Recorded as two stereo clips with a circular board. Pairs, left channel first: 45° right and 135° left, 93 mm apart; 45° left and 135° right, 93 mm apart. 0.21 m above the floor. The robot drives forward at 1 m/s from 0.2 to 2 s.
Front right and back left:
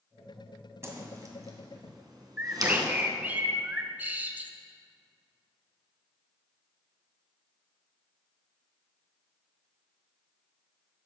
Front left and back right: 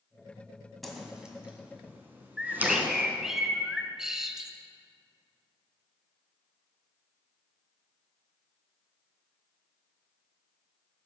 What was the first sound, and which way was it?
A whoosh, 130° left.